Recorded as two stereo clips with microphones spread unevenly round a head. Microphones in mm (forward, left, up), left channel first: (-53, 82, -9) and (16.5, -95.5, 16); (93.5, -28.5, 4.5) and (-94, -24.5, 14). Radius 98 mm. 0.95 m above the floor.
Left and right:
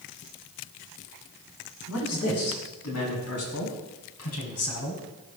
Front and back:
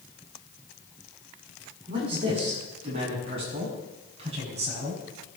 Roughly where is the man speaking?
Left.